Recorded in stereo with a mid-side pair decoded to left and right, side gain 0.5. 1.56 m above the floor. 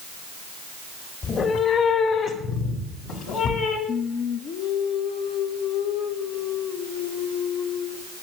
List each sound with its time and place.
1.2 s a cat meowing: 50° left, 2.5 m; by 3.8 s 75° left, 4.5 m
3.9 s singing: 60° left, 1.6 m